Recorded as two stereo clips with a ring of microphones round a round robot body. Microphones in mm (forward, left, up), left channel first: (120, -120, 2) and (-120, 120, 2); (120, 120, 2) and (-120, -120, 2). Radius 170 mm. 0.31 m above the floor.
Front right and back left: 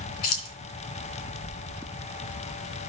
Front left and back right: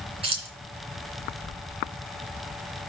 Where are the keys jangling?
60° right, 3 m.